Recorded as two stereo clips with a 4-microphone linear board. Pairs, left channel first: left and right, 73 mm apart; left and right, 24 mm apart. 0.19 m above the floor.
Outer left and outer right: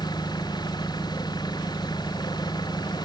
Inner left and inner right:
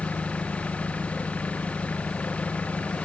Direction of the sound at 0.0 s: 75° left (ahead or behind).